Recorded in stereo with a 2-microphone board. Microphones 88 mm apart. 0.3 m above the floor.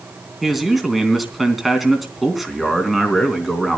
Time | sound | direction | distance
0.4 | a man speaking | centre (ahead or behind) | 3 m